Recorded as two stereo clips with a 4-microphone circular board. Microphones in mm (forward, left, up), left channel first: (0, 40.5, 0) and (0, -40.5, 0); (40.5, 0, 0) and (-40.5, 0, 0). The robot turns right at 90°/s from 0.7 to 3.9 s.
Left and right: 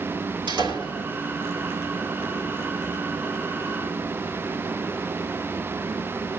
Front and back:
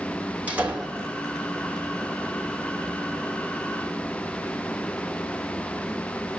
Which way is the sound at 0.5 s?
110° right.